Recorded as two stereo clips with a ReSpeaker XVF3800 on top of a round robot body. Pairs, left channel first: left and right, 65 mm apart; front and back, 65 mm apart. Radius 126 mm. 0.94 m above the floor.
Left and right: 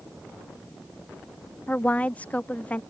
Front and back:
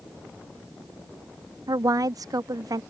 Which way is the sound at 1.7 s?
160° left.